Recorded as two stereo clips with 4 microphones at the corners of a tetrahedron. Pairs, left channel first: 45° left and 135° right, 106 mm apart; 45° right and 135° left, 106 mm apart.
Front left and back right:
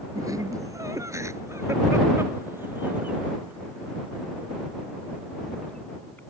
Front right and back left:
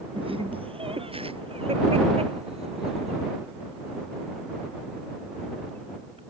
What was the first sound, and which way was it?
Laughter, 170° left.